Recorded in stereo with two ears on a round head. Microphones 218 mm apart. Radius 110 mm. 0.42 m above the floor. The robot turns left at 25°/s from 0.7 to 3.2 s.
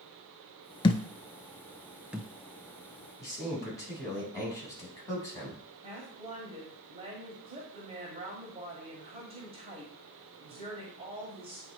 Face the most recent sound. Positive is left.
turn(degrees=-25)  # may be behind; listen again after turning